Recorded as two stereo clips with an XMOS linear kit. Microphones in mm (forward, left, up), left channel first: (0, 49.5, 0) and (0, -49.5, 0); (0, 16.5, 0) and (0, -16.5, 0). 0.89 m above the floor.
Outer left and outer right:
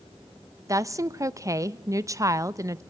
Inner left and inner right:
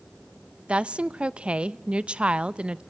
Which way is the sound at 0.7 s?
35° right (ahead or behind).